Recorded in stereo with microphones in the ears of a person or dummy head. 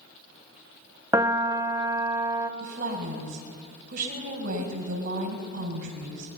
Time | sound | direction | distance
1.1 | a piano | 10° right (ahead or behind) | 0.7 m
2.6 | a woman speaking | 50° right (ahead or behind) | 6 m